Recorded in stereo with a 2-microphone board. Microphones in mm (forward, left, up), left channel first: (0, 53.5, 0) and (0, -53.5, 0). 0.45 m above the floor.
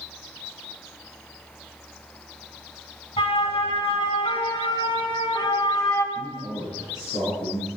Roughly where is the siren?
Left.